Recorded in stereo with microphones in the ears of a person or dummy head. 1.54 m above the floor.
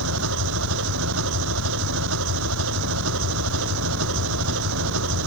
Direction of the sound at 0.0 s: 65° right (ahead or behind).